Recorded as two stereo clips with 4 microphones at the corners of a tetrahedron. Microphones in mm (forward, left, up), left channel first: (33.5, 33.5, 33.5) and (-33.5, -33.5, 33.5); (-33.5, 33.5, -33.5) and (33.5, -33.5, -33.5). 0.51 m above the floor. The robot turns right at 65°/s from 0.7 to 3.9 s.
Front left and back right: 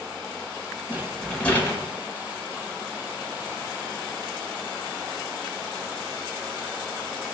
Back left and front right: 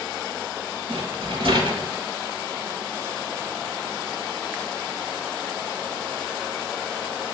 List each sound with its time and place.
0.9 s a rattle: 70° right, 0.9 m; by 1.9 s 5° right, 0.9 m